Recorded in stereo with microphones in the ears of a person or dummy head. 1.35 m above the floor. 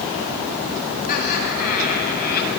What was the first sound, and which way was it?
Laughter, 50° left (ahead or behind).